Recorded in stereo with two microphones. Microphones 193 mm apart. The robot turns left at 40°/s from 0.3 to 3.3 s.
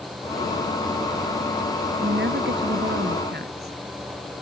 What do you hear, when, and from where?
2.0 s a woman speaking: 65° right; by 3.8 s 115° right